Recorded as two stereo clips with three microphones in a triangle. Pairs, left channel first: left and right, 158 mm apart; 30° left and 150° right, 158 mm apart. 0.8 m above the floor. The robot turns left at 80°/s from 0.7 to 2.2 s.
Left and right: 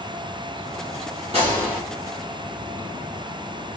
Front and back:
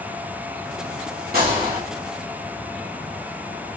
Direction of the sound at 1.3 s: 140° right.